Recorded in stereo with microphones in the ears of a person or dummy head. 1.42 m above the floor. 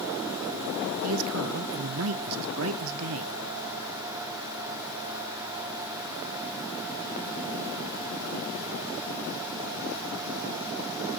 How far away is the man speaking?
About 0.8 m.